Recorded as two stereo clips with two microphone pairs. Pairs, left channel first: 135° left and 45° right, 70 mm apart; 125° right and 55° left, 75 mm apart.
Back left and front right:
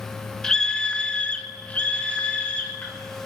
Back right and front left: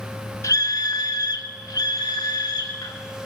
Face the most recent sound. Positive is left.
turn(degrees=-155)